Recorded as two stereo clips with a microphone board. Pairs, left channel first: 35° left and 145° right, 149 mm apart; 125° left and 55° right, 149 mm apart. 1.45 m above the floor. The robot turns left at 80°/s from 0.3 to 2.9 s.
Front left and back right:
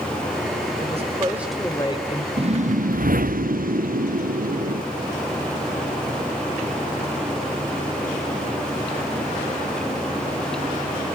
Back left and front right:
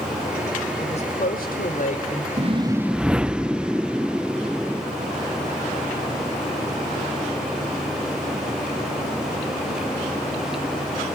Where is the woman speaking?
Straight behind, 5.5 m; by 2.3 s 65° left, 5.5 m.